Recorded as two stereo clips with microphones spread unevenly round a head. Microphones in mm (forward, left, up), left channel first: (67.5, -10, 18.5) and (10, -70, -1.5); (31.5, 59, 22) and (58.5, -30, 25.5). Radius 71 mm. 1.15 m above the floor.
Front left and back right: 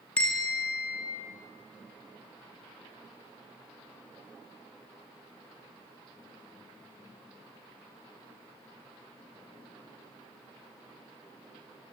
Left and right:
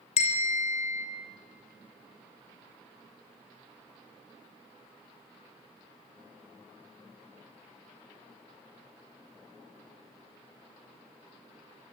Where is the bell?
130° left, 2.5 m.